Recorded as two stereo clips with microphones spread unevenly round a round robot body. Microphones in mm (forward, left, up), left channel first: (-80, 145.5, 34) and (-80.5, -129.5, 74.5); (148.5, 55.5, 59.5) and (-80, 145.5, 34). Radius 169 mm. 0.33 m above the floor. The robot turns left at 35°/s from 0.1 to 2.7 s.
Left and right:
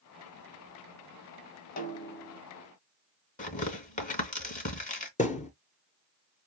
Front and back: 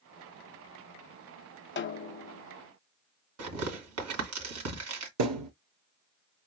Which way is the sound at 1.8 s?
30° left.